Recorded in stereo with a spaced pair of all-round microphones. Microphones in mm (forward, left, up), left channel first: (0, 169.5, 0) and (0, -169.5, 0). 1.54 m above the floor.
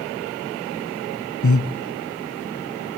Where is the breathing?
65° left (ahead or behind), 1.0 m.